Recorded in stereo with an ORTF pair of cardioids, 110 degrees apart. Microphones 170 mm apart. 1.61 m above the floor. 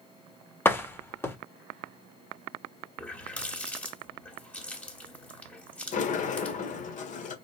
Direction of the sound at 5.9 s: 50° left.